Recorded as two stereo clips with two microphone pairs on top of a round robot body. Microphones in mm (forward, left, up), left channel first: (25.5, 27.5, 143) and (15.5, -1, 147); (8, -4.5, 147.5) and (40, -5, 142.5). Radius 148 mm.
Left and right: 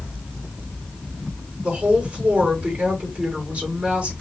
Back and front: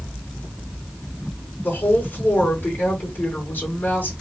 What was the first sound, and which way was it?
A woman speaking, 145° right.